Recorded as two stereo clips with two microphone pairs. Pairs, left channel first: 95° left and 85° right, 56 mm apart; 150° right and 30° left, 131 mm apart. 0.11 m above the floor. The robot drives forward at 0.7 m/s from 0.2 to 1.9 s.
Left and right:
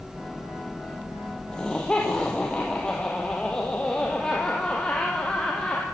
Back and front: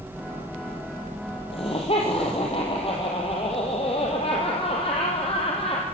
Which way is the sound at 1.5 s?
170° left.